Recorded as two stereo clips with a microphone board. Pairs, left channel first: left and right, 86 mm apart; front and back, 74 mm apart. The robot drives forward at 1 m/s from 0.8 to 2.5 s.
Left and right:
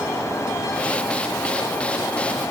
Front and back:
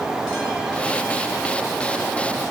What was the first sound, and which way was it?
Only background noise.